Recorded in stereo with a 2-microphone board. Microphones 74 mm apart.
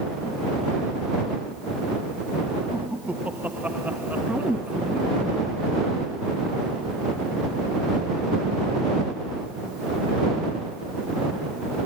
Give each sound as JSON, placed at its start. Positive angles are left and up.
{"t": 2.7, "sound": "laughter", "side_deg": -20}
{"t": 4.3, "sound": "a woman speaking", "side_deg": -10}